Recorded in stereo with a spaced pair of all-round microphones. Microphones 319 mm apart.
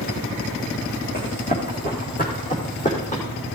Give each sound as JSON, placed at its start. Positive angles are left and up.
{"t": 1.1, "sound": "running footsteps", "side_deg": 30, "distance_m": 5.5}